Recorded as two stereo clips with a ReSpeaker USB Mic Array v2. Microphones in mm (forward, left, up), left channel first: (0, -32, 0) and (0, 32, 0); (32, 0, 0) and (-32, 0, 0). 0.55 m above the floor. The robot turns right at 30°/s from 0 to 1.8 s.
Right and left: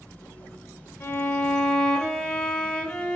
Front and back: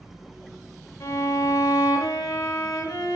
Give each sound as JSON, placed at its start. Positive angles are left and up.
{"t": 1.0, "sound": "a violin", "azimuth_deg": -40, "distance_m": 0.5}